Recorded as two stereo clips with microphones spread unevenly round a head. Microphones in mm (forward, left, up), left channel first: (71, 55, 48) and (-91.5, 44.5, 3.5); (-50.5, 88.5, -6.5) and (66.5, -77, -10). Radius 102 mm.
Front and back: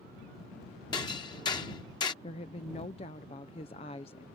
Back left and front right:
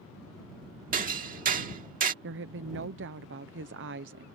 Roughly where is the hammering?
Ahead right.